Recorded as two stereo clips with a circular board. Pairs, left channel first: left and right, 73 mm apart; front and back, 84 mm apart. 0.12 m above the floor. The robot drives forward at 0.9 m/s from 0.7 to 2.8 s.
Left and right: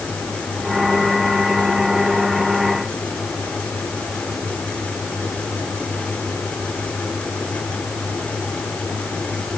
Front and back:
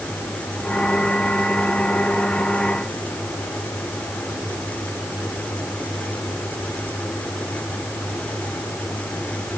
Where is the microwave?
I don't hear a microwave.